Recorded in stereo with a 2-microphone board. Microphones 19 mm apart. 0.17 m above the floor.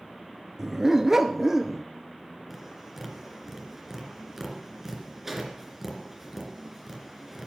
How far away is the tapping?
About 2.5 m.